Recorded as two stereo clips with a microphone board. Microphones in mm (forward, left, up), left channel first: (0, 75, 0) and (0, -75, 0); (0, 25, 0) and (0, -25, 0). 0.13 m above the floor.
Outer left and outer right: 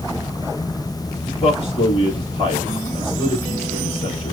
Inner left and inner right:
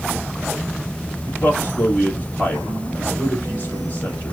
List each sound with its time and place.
1.2 s a man speaking: 40° left (ahead or behind), 1.7 m